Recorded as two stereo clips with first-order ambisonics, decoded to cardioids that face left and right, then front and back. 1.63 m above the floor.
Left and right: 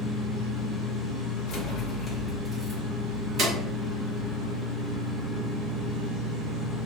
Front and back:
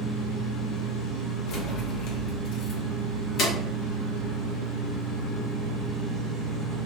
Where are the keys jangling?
35° left, 1.0 m; by 3.5 s 50° right, 1.2 m.